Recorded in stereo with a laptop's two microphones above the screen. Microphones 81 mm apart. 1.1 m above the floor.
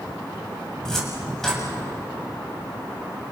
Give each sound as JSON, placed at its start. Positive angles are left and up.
{"t": 0.8, "sound": "a cupboard door", "side_deg": 5, "distance_m": 7.0}